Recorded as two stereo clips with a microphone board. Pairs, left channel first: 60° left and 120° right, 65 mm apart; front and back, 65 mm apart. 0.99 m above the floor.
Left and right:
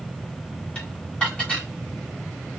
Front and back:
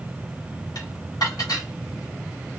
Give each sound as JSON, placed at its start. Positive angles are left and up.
{"t": 0.8, "sound": "dishes clattering", "azimuth_deg": -15, "distance_m": 1.8}